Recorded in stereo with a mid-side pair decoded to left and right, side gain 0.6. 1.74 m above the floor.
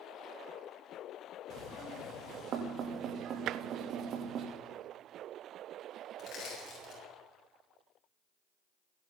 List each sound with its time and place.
1.5 s knocking: 55° right, 3 m
3.5 s tapping: 60° right, 0.5 m
6.2 s crushing: 45° left, 8 m